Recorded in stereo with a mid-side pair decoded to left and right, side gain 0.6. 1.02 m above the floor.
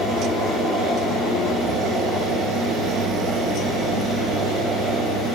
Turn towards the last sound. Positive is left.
turn(degrees=-60)